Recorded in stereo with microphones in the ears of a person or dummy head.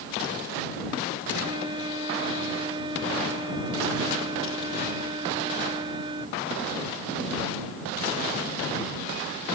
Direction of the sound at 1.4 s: 25° right (ahead or behind).